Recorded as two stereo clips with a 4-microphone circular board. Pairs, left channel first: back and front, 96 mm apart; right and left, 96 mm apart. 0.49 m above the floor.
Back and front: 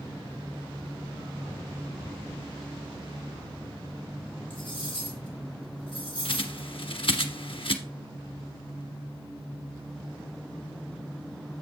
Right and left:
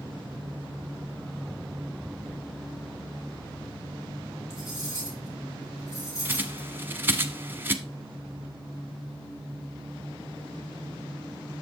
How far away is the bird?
About 0.9 m.